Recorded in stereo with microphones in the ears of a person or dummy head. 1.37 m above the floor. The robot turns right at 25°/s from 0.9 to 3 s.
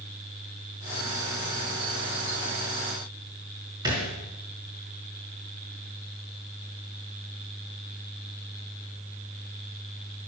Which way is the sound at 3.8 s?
20° right (ahead or behind).